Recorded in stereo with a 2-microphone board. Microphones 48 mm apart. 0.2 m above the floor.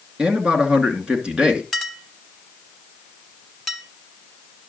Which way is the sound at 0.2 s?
20° right (ahead or behind).